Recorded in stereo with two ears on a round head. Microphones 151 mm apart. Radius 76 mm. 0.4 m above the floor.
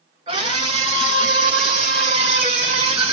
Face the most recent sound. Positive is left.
turn(degrees=-35)  # may be behind; listen again after turning